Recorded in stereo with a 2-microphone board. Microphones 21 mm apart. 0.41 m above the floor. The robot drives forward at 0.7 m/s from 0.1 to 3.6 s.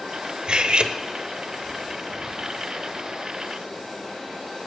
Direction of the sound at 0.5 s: 50° right (ahead or behind).